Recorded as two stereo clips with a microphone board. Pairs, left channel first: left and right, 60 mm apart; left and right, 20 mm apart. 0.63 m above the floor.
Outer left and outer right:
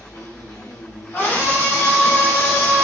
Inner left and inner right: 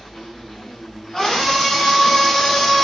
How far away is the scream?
About 2 m.